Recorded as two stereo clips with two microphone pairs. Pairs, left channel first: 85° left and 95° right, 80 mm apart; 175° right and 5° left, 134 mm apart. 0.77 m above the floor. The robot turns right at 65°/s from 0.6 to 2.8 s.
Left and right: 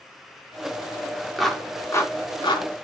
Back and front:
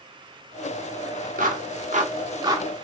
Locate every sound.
1.4 s a clap: 5° right, 1.1 m; by 2.7 s 75° left, 1.1 m